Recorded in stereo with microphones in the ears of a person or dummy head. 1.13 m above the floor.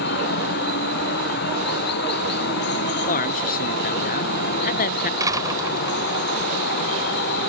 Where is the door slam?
20° right (ahead or behind).